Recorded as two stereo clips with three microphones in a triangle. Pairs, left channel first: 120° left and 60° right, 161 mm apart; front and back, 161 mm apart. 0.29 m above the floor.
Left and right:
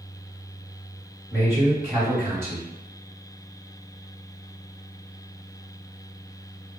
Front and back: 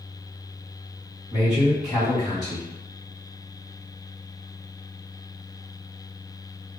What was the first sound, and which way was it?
A man speaking, 5° left.